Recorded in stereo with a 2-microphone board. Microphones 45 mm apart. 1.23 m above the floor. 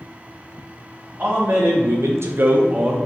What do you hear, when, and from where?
1.2 s a man speaking: 35° right (ahead or behind), 1.1 m; by 3.0 s 20° right (ahead or behind), 1.1 m